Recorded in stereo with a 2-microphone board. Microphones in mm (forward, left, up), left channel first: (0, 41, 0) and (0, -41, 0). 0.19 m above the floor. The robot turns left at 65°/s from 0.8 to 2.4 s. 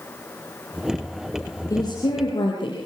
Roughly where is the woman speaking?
Behind left.